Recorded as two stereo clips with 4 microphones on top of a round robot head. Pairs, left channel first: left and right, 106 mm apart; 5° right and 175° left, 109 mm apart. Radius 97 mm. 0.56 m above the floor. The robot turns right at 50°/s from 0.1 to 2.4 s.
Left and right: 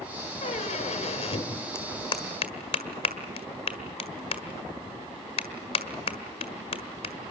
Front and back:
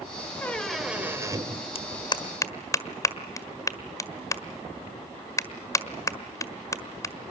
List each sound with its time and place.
0.4 s a squeak: 65° left, 2 m; by 1.6 s 130° left, 2 m
1.8 s a clap: 20° left, 1.6 m; by 7.1 s 55° left, 1.6 m